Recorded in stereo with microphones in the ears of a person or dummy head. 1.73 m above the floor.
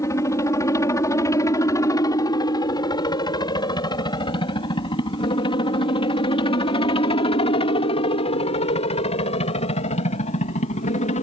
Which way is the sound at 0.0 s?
15° left (ahead or behind).